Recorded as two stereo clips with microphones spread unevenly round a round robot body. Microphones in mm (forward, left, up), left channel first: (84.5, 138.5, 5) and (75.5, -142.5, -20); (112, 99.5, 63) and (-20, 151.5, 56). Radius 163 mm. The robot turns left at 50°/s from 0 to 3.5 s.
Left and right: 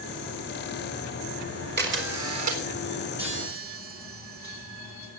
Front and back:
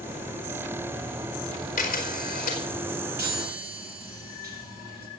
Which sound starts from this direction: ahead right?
A camera shutter, at 1.8 s.